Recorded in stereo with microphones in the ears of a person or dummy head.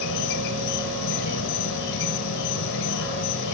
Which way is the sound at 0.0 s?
70° left (ahead or behind).